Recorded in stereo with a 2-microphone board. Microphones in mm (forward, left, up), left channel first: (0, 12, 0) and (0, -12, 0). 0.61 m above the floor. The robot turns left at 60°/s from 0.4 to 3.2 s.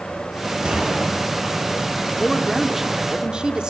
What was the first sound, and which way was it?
A gunshot, 45° right (ahead or behind).